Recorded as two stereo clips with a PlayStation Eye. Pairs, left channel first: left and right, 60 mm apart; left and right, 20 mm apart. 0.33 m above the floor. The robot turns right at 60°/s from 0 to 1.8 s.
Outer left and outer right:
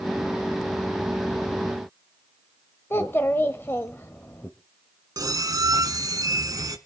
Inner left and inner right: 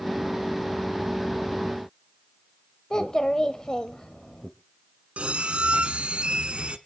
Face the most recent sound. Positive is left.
turn(degrees=-85)